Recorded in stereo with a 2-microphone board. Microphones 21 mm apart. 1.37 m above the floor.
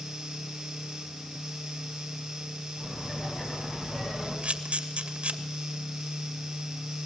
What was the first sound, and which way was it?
Laughter, 20° left (ahead or behind).